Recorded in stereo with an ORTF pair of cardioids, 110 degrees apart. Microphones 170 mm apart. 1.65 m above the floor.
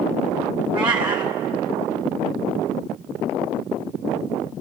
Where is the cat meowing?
30° right, 2.5 m.